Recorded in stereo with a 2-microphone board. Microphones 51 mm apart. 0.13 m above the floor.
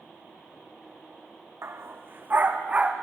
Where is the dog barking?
60° right (ahead or behind), 2.0 m; by 2.9 s 25° right (ahead or behind), 2.5 m.